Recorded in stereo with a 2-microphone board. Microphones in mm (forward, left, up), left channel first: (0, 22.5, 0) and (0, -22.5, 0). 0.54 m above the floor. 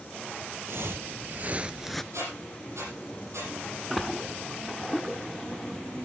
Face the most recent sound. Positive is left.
turn(degrees=0)  # may be behind; listen again after turning